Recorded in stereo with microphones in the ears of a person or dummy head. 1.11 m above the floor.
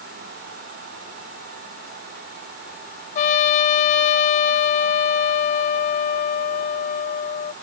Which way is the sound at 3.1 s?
40° left (ahead or behind).